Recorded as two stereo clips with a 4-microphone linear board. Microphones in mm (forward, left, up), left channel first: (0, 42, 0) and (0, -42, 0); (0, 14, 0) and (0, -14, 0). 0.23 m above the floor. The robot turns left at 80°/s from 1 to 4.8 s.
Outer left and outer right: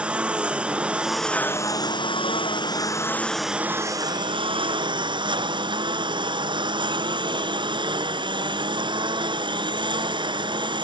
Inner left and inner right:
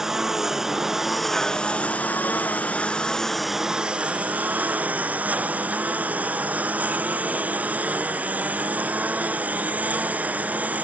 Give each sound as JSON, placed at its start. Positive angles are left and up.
{"t": 0.0, "sound": "a lawn mower", "azimuth_deg": -165}